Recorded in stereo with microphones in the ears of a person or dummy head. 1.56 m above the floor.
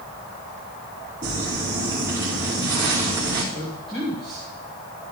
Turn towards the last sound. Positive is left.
turn(degrees=5)  # may be behind; listen again after turning